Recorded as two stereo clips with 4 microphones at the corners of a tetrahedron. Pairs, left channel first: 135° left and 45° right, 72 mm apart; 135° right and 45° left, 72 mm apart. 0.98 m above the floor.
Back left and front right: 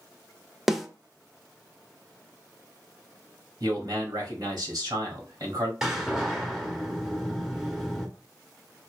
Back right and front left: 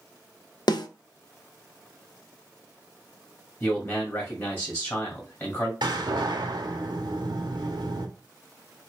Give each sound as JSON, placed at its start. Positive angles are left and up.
{"t": 0.7, "sound": "a snare drum", "azimuth_deg": -130, "distance_m": 0.6}
{"t": 3.6, "sound": "a man speaking", "azimuth_deg": -80, "distance_m": 1.8}
{"t": 5.8, "sound": "a door slam", "azimuth_deg": 40, "distance_m": 1.0}